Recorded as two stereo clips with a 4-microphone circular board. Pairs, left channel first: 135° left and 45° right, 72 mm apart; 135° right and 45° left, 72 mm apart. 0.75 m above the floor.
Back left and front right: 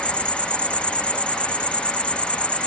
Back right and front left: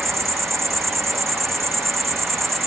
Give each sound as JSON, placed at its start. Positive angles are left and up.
{"t": 0.0, "sound": "an insect", "azimuth_deg": 70}